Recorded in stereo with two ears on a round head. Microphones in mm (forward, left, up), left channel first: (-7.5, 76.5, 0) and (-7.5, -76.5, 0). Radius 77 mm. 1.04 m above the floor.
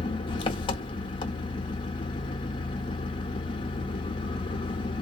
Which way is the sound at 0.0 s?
30° left (ahead or behind).